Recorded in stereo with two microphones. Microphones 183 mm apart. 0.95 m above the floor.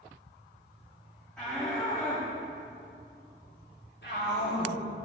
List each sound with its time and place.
1.4 s a shout: 10° left (ahead or behind), 2 m; by 4.8 s 75° left (ahead or behind), 2.5 m